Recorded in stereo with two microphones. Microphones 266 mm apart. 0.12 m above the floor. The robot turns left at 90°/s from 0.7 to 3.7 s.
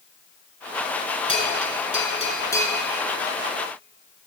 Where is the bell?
20° left (ahead or behind), 1.7 m; by 2.8 s centre (ahead or behind), 1.7 m.